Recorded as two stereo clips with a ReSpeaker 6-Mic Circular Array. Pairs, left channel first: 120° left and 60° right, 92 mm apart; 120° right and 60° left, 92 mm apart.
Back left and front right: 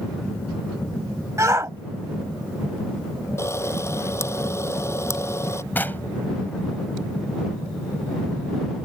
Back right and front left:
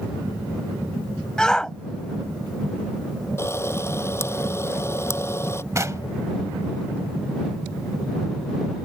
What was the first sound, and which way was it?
A shout, 45° right.